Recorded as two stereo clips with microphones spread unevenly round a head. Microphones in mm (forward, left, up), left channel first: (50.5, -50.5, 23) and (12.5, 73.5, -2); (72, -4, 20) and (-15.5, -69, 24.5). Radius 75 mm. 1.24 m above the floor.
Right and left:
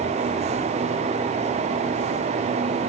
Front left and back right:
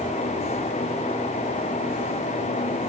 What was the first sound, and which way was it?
Only background noise.